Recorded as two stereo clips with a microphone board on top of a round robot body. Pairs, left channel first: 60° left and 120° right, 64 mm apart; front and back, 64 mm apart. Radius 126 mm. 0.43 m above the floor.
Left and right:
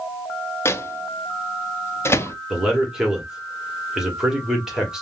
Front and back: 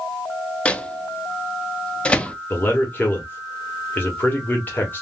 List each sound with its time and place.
0.7 s a microwave: 65° left, 0.6 m
2.5 s a man speaking: 40° right, 1.2 m